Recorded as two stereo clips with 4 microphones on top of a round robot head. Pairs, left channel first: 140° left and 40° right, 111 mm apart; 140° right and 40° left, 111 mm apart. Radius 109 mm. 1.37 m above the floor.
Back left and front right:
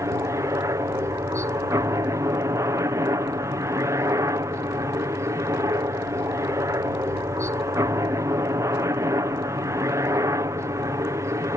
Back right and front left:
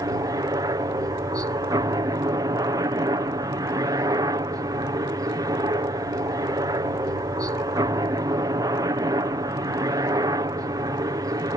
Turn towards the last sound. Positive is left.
turn(degrees=5)